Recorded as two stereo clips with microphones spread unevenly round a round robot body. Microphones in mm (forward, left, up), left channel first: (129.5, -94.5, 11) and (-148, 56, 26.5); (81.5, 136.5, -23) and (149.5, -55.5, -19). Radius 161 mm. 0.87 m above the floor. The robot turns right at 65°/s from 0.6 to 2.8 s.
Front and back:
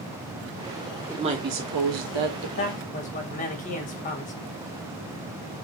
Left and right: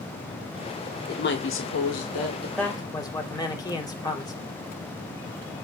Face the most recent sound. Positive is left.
turn(degrees=40)